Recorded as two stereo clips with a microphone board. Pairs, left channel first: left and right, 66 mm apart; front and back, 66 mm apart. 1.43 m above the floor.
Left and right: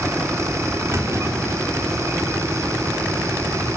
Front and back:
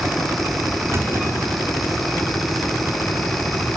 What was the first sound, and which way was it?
A clunk, 130° right.